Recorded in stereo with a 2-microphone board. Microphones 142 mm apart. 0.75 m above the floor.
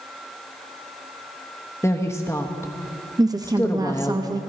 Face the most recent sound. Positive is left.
turn(degrees=-25)  # may be behind; listen again after turning